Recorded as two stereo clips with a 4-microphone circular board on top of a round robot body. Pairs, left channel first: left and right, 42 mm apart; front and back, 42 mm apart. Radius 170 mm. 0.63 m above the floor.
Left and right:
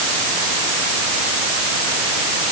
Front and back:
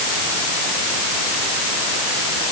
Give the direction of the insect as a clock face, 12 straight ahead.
No insect in this recording.